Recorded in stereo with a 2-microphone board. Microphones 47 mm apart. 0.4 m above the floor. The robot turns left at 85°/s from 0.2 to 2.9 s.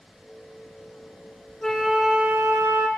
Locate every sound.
1.6 s a flute: 10° left, 1.1 m; by 2.9 s 95° right, 1.1 m